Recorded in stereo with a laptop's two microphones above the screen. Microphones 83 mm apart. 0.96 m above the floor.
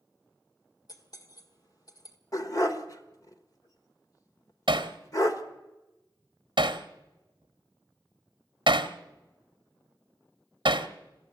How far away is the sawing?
No sawing in this recording.